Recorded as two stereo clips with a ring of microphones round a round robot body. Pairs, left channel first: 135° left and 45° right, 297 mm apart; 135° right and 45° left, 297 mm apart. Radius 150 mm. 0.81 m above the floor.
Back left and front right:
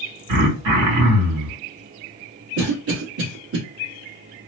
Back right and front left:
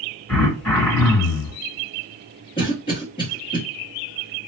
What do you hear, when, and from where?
0.3 s throat clearing: 55° right, 1.9 m
2.6 s a cough: 65° right, 1.3 m